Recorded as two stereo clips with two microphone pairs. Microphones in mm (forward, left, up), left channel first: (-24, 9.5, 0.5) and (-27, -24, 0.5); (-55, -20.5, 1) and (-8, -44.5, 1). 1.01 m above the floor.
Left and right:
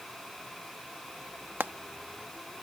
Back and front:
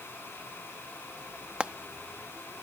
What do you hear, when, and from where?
1.6 s frying: 100° right